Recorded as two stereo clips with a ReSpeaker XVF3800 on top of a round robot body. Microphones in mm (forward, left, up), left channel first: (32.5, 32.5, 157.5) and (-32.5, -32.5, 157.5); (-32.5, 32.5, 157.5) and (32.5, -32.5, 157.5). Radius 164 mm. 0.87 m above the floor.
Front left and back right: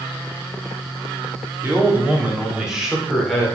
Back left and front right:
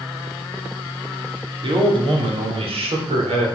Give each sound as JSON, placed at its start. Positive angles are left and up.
{"t": 1.6, "sound": "a man speaking", "azimuth_deg": -70, "distance_m": 3.5}